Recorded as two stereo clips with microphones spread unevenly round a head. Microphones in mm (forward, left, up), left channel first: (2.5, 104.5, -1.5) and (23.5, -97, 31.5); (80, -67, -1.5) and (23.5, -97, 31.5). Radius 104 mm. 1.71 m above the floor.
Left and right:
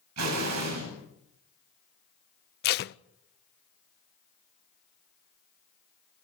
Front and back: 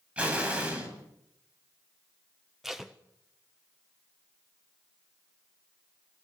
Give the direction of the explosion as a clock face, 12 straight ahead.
3 o'clock.